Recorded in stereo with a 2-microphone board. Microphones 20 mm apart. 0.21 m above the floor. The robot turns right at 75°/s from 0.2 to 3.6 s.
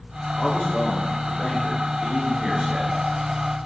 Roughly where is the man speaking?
Ahead left.